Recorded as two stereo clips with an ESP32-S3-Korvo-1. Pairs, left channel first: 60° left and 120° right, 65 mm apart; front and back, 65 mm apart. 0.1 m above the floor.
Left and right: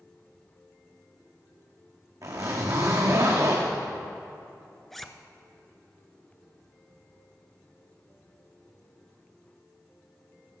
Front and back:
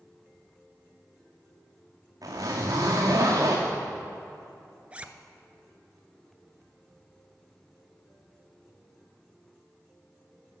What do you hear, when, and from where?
2.2 s a zipper: 150° right, 2.5 m
4.9 s a zipper: 145° left, 0.5 m